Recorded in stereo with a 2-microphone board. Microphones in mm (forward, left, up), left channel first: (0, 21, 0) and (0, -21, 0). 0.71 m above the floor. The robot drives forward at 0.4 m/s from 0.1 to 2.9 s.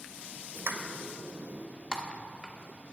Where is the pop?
70° right (ahead or behind), 1.0 m; by 1.6 s 75° right (ahead or behind), 0.9 m.